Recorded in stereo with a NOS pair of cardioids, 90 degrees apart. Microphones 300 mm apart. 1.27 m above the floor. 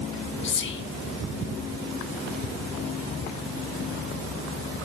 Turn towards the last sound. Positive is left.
turn(degrees=40)